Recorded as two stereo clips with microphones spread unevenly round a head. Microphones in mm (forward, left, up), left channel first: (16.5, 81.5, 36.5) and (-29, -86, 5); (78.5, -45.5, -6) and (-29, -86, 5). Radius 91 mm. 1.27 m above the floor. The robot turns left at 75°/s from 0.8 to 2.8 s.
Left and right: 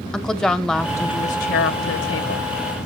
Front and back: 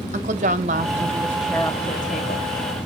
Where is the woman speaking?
160° left, 0.8 m; by 2.5 s 35° left, 0.8 m.